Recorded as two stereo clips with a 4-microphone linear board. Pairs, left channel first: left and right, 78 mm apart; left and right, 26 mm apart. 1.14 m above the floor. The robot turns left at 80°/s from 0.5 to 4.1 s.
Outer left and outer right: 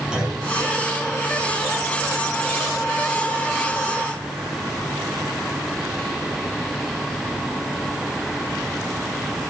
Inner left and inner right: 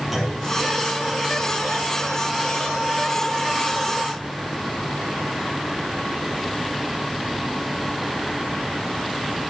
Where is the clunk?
10° right (ahead or behind), 6.5 m.